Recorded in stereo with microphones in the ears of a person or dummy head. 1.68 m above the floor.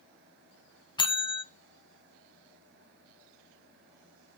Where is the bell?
20° left (ahead or behind), 0.5 m.